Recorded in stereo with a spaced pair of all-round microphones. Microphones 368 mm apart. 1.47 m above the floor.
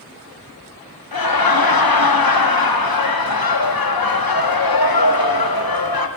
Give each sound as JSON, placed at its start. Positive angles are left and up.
{"t": 1.1, "sound": "laughter", "side_deg": 70, "distance_m": 0.7}